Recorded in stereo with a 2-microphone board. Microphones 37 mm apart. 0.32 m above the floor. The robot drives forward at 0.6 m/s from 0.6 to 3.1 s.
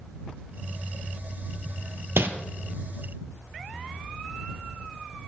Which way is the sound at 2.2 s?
90° right.